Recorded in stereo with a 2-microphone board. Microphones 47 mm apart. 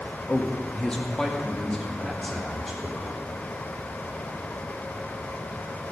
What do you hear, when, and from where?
0.3 s a man speaking: 30° left (ahead or behind), 1.7 m; by 3.2 s 5° right (ahead or behind), 3.5 m